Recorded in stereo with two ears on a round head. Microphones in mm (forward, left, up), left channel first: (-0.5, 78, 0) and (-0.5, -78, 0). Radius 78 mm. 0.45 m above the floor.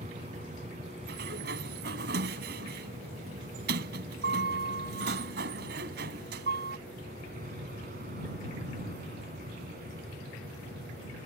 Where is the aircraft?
40° right (ahead or behind); by 11.3 s 55° right (ahead or behind).